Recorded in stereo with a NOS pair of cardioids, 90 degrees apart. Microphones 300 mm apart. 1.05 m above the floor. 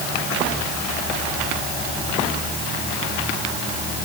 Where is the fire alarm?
I don't hear a fire alarm.